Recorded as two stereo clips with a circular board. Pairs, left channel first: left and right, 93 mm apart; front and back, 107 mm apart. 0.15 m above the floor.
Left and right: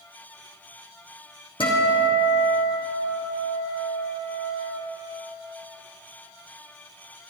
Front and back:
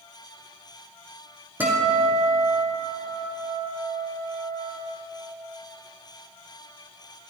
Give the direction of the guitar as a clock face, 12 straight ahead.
8 o'clock.